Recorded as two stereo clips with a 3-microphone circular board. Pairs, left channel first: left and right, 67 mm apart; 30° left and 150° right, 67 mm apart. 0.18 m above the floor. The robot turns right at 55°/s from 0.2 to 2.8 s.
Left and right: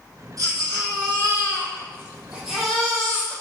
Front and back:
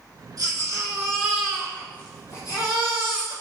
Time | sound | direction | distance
0.4 | a baby crying | 120° right | 4.5 m